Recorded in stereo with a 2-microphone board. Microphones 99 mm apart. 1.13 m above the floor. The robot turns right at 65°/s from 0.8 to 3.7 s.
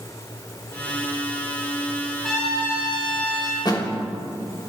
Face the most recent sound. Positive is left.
turn(degrees=45)  # may be behind; listen again after turning